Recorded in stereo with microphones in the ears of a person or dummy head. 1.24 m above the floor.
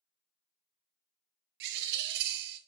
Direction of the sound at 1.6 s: 55° right (ahead or behind).